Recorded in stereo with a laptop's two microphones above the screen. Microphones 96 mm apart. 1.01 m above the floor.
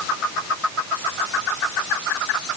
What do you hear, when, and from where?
Only background noise.